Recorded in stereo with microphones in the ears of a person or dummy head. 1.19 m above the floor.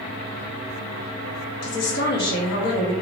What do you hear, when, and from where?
1.6 s a woman speaking: 50° left (ahead or behind), 0.9 m